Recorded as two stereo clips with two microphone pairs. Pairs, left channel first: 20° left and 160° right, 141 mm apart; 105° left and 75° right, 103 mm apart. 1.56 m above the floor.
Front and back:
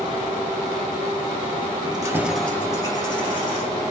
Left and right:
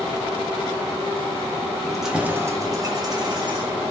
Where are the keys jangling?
170° right, 0.7 m; by 3.8 s 30° right, 1.7 m.